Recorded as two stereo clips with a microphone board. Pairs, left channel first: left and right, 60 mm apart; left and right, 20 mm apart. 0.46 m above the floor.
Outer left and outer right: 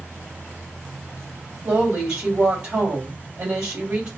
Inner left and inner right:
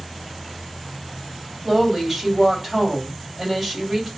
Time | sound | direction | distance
1.6 | a woman speaking | 30° right (ahead or behind) | 2 m